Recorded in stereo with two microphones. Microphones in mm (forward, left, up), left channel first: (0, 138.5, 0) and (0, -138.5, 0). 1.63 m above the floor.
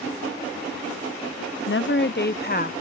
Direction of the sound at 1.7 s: 50° left (ahead or behind).